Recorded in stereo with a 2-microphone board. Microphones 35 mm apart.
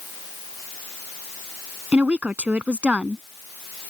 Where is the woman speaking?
40° right (ahead or behind).